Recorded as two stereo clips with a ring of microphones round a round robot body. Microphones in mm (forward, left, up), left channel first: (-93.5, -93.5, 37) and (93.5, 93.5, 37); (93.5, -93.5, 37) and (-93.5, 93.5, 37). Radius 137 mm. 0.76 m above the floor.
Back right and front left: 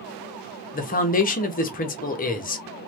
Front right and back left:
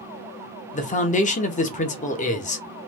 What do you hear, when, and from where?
0.7 s a man speaking: 95° right, 0.8 m